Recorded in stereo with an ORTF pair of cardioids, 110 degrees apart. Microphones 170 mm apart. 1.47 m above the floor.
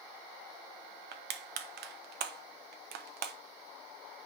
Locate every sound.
1.1 s crushing: 65° right, 1.1 m